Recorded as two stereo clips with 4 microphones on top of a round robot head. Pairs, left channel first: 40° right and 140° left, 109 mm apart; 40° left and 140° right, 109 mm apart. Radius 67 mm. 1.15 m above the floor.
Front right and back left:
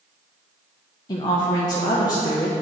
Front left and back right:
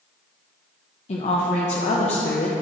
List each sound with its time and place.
1.1 s a woman speaking: 15° left, 0.8 m